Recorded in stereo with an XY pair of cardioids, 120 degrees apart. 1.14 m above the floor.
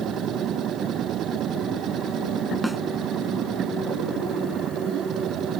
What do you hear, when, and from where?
0.0 s a machine running: 60° right
2.6 s a snare drum: straight ahead